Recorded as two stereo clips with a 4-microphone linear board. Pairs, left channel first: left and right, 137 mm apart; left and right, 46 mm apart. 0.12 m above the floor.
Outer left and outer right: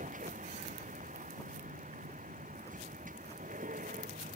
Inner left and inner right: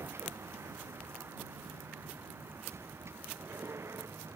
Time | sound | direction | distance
0.0 | a vehicle | 75° right (ahead or behind) | ?